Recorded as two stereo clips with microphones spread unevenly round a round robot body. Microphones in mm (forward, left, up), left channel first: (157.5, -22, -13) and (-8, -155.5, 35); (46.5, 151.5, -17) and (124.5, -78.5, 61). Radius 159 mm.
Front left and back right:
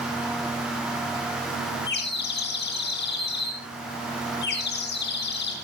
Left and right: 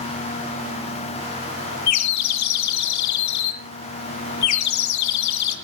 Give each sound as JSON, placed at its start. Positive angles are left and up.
{"t": 1.9, "sound": "a bird", "azimuth_deg": 100, "distance_m": 2.0}